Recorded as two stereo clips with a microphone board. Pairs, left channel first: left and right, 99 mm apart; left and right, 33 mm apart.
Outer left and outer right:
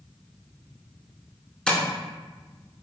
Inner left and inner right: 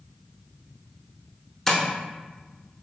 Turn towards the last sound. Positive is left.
turn(degrees=10)  # may be behind; listen again after turning